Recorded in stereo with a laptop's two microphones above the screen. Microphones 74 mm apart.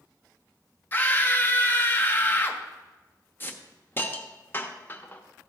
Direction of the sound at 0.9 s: 30° left (ahead or behind).